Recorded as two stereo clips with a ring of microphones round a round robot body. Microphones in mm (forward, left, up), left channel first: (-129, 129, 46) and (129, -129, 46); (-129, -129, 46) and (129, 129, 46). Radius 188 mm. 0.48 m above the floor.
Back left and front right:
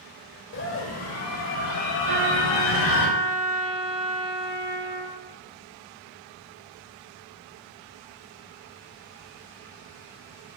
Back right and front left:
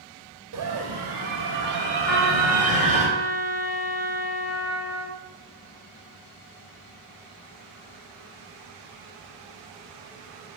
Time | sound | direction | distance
0.5 | a scream | 85° left | 3 m
2.1 | a trumpet | 50° right | 4.5 m